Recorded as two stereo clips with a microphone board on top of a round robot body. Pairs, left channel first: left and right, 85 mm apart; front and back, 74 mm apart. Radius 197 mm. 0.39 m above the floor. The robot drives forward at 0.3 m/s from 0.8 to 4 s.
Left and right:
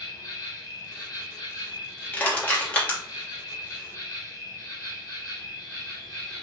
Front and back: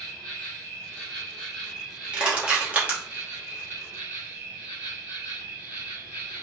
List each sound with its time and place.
0.0 s an insect: 70° left, 1.5 m; by 6.4 s 120° left, 1.5 m
2.1 s crushing: 125° left, 1.3 m; by 3.0 s 145° left, 1.4 m